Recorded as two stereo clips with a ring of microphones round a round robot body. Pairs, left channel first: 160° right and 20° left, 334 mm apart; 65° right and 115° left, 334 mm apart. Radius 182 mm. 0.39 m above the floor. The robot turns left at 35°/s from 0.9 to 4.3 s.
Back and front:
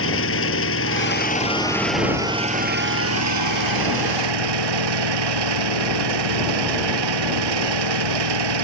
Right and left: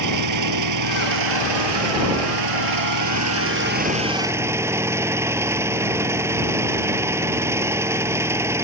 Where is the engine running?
150° left; by 8.7 s 30° left.